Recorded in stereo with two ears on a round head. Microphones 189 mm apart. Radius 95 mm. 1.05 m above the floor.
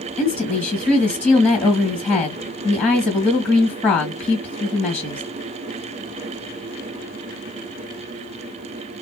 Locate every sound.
0.2 s a woman speaking: 5° left (ahead or behind), 1.6 m